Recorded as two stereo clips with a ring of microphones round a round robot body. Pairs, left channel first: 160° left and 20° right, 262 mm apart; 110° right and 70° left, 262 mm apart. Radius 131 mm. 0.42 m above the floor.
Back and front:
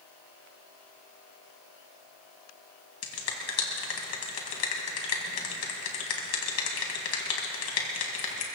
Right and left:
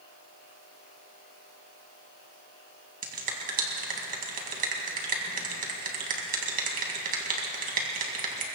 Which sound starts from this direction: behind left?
A finger snap, at 3.0 s.